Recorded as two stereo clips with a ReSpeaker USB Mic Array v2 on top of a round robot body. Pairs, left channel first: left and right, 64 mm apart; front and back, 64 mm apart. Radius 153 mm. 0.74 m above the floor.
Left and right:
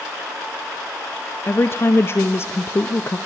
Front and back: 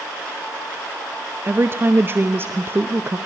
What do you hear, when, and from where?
1.4 s a woman speaking: 130° left, 1.0 m